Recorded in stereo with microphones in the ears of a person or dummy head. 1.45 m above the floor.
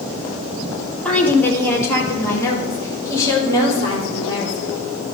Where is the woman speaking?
5° left (ahead or behind), 1.1 m; by 4.8 s 20° left (ahead or behind), 4 m.